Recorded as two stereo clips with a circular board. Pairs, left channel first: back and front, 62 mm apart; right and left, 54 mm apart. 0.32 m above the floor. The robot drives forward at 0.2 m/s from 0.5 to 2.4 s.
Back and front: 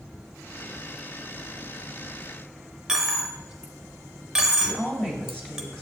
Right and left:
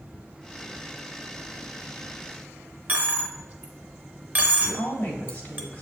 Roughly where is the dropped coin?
Left.